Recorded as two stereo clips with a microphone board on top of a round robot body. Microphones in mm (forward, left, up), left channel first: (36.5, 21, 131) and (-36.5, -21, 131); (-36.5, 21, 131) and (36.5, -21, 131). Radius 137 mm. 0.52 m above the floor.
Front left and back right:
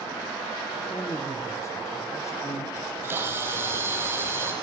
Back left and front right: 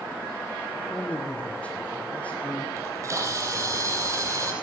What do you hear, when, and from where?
0.9 s a man speaking: 75° left, 1.8 m
2.8 s a camera shutter: 85° right, 4.5 m